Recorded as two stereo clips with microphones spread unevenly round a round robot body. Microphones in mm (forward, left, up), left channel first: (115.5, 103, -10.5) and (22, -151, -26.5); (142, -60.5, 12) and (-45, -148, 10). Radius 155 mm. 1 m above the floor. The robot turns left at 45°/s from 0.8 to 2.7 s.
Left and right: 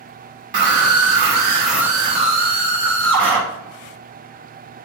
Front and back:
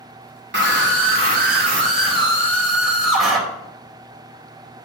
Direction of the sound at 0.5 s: 120° right.